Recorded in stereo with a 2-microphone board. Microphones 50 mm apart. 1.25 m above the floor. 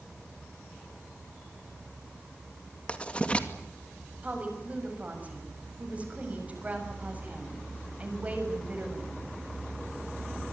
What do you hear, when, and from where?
2.9 s writing: 25° left (ahead or behind), 2.5 m
4.2 s a woman speaking: 30° right (ahead or behind), 7 m